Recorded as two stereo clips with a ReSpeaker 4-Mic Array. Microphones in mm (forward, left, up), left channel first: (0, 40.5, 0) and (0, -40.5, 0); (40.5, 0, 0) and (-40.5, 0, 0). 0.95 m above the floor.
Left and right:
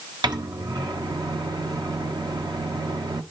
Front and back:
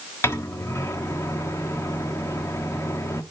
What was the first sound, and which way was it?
A microwave, 60° right.